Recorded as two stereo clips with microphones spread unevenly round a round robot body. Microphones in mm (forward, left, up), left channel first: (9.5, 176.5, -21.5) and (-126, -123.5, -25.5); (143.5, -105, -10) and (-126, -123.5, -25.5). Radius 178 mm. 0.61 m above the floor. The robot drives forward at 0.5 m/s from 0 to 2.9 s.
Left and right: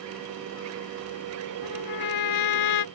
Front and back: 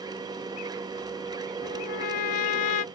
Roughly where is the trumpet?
Ahead left.